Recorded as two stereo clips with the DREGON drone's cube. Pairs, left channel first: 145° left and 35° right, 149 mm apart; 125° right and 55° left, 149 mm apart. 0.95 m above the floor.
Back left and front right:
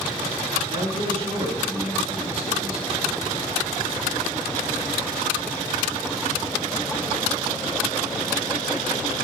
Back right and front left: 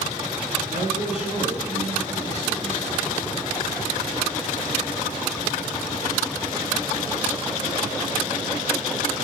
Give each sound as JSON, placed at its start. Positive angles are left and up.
{"t": 0.7, "sound": "a man speaking", "azimuth_deg": 15, "distance_m": 8.0}